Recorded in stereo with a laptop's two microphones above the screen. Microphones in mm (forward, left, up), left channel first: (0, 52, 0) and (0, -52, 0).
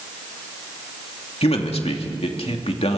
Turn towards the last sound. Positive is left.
turn(degrees=70)  # may be behind; listen again after turning